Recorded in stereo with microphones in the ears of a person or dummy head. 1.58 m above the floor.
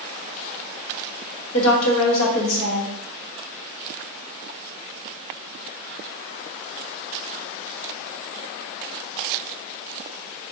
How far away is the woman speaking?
About 1.1 m.